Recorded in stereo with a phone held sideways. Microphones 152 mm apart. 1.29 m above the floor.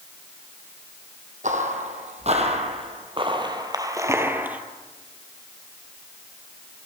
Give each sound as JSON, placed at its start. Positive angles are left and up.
{"t": 1.4, "sound": "footsteps", "side_deg": -55, "distance_m": 2.0}